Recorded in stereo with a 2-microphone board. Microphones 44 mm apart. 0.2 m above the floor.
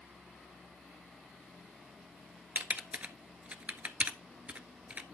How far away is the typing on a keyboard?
About 0.7 m.